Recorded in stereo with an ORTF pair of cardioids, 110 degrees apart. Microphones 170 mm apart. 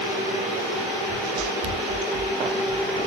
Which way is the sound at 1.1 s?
40° right.